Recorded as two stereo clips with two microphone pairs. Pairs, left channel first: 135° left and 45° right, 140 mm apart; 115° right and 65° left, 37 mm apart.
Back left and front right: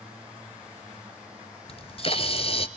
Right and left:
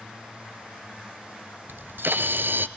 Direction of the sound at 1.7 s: 85° left.